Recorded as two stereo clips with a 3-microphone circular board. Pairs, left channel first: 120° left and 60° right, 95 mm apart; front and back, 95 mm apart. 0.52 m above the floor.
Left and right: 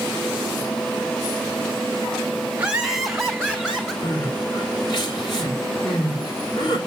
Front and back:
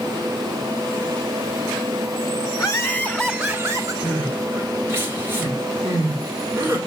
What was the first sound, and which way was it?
Laughter, 10° left.